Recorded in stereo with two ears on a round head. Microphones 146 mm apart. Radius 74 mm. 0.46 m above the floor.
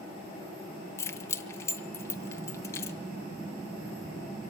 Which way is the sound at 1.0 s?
15° left (ahead or behind).